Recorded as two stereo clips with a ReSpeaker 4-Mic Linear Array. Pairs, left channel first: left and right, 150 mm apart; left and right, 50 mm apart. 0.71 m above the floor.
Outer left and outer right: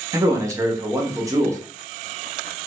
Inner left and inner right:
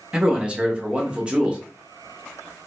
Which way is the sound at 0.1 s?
20° right (ahead or behind).